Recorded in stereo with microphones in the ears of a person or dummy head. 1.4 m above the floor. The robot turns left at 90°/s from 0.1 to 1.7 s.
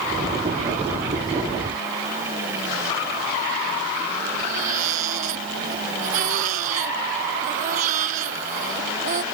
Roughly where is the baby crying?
Right.